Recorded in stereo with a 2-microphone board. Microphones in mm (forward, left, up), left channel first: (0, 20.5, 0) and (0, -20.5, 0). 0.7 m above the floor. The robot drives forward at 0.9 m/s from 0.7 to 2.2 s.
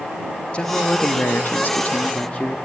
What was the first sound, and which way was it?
A man speaking, 30° left (ahead or behind).